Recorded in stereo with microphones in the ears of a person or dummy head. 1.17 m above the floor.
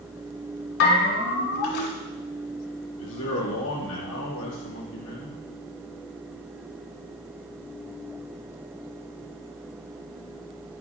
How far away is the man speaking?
About 2.5 m.